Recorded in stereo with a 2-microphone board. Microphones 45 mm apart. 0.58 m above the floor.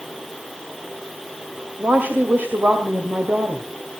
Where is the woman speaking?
45° right (ahead or behind), 2 m.